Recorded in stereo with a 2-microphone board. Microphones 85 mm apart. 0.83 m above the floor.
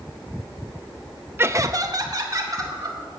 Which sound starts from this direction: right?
Laughter, at 1.4 s.